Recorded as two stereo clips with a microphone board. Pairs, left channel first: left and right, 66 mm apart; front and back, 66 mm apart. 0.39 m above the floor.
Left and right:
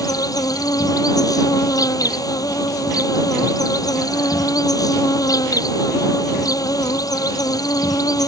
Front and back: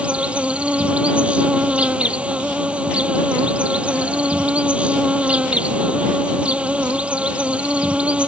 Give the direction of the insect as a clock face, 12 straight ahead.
8 o'clock.